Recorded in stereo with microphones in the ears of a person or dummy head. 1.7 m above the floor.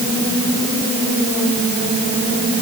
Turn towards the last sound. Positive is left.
No sound to turn to.